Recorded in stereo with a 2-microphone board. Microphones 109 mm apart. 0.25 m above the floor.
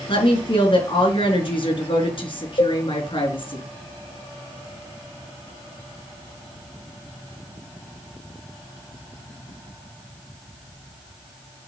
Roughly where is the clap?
No clap in this recording.